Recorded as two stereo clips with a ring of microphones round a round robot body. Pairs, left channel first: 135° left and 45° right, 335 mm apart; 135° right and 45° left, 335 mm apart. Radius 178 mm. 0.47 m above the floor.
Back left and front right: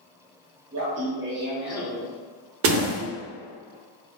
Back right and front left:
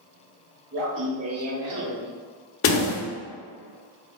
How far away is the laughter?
About 2.0 m.